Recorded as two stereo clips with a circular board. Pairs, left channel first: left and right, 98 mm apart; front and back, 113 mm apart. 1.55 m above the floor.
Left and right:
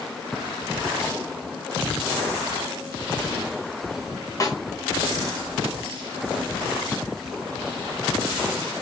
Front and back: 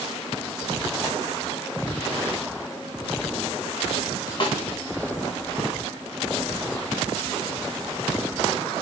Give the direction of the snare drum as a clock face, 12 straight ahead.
11 o'clock.